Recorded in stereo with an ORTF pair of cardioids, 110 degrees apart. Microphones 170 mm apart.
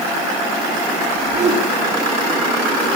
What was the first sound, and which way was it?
A whoosh, 50° right.